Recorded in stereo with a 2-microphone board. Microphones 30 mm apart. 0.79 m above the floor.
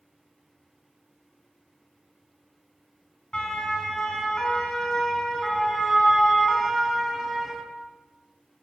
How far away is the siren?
About 5.5 m.